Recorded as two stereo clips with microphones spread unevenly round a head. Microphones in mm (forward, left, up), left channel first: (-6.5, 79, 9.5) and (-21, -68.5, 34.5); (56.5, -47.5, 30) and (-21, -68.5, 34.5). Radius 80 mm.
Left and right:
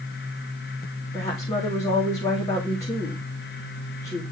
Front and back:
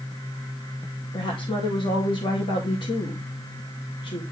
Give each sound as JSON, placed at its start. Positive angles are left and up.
{"t": 1.1, "sound": "a woman speaking", "azimuth_deg": 15, "distance_m": 2.0}